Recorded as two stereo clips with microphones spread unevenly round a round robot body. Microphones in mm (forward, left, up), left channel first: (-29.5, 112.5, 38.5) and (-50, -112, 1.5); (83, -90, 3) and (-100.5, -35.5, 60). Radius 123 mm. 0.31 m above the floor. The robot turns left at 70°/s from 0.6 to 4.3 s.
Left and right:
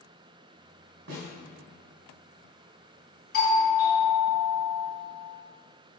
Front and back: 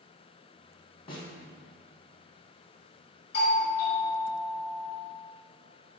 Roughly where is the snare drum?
Ahead right.